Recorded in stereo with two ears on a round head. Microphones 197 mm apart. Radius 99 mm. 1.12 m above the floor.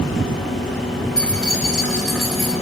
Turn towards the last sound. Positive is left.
turn(degrees=0)  # may be behind; listen again after turning